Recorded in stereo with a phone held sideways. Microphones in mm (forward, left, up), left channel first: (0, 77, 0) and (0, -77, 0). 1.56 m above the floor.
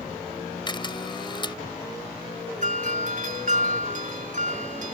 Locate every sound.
0.7 s a camera shutter: 30° left (ahead or behind)
2.6 s a doorbell: 60° right (ahead or behind)